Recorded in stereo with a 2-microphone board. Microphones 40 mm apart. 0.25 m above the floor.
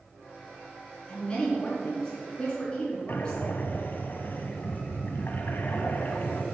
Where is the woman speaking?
20° left (ahead or behind), 3.5 m.